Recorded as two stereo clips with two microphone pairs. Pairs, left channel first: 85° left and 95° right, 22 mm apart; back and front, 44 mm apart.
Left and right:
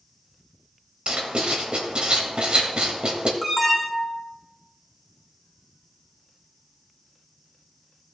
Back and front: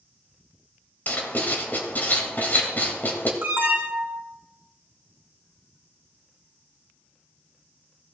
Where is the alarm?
20° right, 1.8 m.